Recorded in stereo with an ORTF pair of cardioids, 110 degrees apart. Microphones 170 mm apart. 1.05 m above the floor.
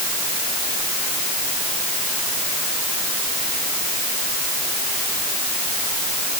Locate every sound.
Only background noise.